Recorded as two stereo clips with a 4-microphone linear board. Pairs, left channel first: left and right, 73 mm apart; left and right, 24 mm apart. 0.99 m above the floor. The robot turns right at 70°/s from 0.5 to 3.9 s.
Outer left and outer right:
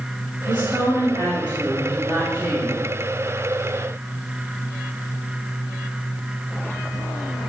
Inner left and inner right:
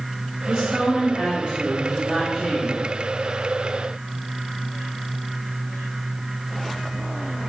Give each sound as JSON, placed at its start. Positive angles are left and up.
{"t": 0.5, "sound": "a woman speaking", "azimuth_deg": -160, "distance_m": 3.0}